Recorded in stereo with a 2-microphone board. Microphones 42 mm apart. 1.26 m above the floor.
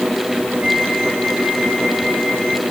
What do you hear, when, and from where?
0.6 s a flute: 70° right (ahead or behind), 6.5 m